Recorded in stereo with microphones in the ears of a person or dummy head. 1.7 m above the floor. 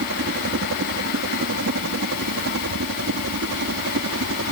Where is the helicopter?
60° right (ahead or behind); by 4.5 s 70° right (ahead or behind).